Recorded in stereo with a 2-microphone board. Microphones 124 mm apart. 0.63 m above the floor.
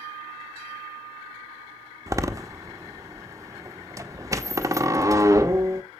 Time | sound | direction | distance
2.1 | a door slam | 25° right (ahead or behind) | 0.9 m